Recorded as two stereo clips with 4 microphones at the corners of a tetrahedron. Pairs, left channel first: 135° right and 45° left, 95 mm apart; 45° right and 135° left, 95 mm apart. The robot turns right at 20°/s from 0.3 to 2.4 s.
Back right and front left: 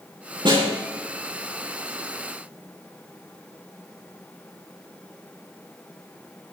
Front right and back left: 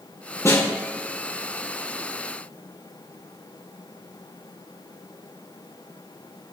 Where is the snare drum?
10° left, 6 m; by 0.7 s 20° left, 6 m.